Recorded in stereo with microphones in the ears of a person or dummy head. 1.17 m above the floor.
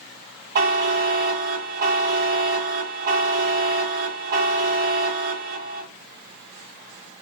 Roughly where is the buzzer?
Right.